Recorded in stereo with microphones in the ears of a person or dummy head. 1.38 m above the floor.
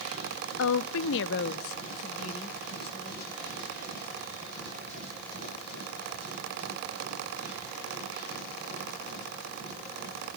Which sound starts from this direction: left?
A woman speaking, at 0.6 s.